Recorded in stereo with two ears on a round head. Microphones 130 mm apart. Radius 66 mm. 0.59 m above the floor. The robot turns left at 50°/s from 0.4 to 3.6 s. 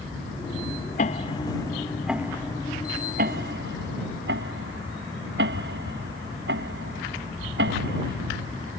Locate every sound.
1.0 s ticking: 50° left (ahead or behind); by 8.7 s 80° right